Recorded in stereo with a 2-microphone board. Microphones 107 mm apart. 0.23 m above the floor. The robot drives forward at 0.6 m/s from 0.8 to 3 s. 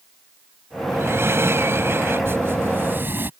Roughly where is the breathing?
Right.